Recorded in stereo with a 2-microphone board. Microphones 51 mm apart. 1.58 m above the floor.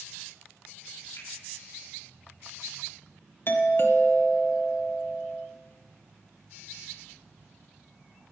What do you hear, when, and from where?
1.2 s a finger snap: 75° left (ahead or behind), 4 m
3.5 s a doorbell: 50° left (ahead or behind), 0.8 m